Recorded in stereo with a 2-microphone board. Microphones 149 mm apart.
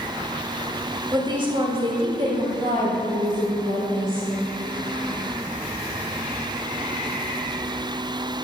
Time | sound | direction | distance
1.1 | a woman speaking | 30° right (ahead or behind) | 1.8 m